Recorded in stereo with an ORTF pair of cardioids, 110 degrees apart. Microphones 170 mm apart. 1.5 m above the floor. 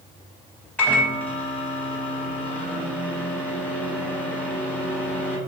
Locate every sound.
0.8 s a microwave: 10° left, 0.6 m